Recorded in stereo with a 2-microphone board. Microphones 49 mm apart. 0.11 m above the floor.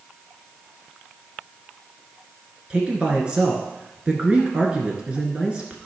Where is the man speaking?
20° right (ahead or behind), 1.5 m.